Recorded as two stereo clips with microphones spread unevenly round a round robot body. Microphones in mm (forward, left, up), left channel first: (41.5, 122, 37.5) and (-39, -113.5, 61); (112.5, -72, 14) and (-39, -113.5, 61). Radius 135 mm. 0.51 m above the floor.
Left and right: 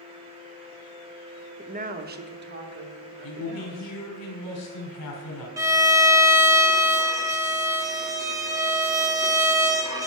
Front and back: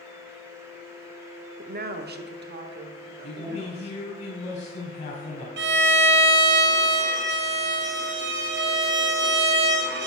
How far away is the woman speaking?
About 0.8 m.